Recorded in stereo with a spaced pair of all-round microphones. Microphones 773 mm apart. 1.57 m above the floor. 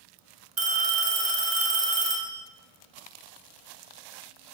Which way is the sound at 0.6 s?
40° right (ahead or behind).